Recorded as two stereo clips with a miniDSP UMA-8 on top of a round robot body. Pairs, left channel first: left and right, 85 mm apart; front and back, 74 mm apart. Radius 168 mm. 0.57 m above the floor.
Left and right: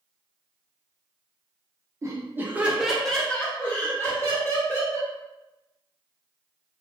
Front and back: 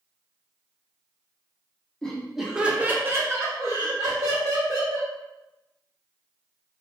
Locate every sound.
2.0 s laughter: 75° right, 0.8 m; by 5.1 s 140° left, 1.5 m